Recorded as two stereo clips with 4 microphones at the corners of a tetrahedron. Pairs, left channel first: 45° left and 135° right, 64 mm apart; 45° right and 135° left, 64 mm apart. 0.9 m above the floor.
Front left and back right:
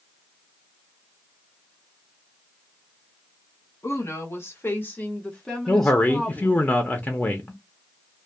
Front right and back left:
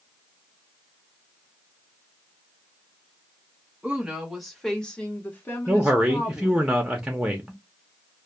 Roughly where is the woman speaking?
Ahead left.